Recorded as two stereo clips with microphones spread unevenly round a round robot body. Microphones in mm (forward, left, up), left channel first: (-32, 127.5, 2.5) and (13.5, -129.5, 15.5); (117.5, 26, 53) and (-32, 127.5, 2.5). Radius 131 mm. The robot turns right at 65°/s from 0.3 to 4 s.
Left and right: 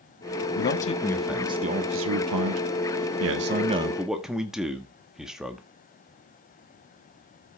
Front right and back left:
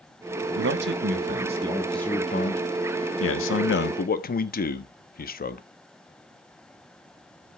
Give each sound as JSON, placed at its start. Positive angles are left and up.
{"t": 0.6, "sound": "a man speaking", "azimuth_deg": 145, "distance_m": 1.3}